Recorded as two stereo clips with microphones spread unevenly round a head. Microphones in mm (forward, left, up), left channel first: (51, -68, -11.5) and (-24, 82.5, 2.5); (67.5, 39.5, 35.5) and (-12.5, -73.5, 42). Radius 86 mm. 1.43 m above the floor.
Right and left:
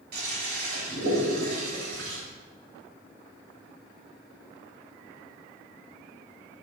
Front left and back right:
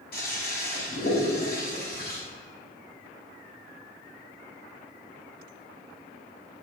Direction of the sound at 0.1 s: 90° left.